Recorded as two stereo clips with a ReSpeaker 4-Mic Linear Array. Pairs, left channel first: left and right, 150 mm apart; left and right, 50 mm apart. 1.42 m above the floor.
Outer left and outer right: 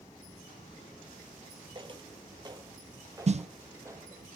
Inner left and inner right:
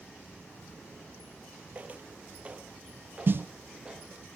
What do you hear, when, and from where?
1.8 s footsteps: 35° right (ahead or behind), 1.6 m; by 4.2 s 15° right (ahead or behind), 2.5 m
3.3 s a snare drum: 45° right (ahead or behind), 0.5 m